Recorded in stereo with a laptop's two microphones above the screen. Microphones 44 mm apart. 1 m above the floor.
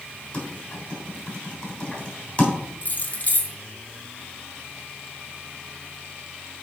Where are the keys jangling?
35° left (ahead or behind), 0.7 m.